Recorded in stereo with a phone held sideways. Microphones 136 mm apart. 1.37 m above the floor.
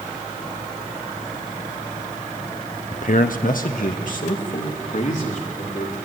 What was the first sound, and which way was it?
A man speaking, 55° left (ahead or behind).